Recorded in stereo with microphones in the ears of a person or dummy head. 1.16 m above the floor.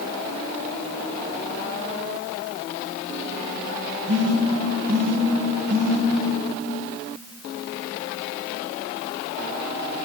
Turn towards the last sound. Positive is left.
turn(degrees=-55)  # may be behind; listen again after turning